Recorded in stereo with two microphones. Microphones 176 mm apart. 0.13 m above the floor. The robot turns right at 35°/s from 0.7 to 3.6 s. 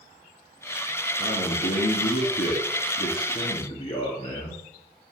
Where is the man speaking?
50° left, 2.5 m; by 4.6 s 135° left, 2.5 m.